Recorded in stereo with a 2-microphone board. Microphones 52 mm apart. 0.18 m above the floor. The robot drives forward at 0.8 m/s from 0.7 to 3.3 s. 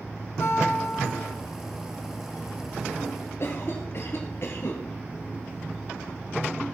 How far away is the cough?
About 2.5 m.